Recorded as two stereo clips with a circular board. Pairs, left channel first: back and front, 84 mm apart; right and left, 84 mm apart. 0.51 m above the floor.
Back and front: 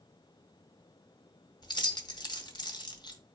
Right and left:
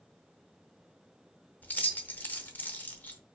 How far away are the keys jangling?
About 0.7 m.